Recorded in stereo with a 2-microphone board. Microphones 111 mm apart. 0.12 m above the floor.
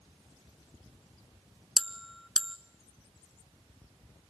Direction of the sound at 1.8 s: Centre (ahead or behind).